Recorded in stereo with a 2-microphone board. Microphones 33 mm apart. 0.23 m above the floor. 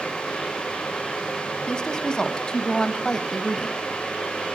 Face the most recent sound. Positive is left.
turn(degrees=10)  # may be behind; listen again after turning